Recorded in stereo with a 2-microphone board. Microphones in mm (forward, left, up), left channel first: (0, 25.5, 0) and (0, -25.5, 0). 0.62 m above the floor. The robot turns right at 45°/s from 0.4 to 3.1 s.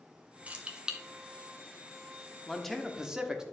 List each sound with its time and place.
0.5 s keys jangling: 25° right (ahead or behind), 0.7 m; by 1.0 s 10° right (ahead or behind), 0.7 m
2.5 s a man speaking: 10° left (ahead or behind), 1.0 m; by 3.4 s 10° right (ahead or behind), 1.0 m